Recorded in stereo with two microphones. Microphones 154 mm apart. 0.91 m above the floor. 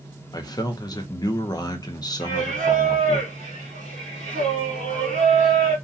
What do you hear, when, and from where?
0.3 s a man speaking: 25° left (ahead or behind), 0.7 m
2.2 s singing: 50° right (ahead or behind), 1.3 m